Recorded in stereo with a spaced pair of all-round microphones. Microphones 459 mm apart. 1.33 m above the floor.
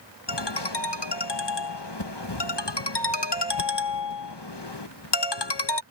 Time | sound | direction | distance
0.3 | a ringtone | 60° left (ahead or behind) | ?